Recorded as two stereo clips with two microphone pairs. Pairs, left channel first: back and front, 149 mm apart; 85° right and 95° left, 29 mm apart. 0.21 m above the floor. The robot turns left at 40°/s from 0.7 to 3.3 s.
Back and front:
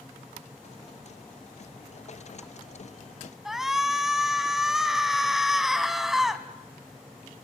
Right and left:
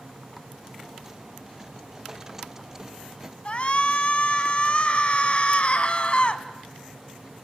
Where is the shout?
90° right, 1.8 m.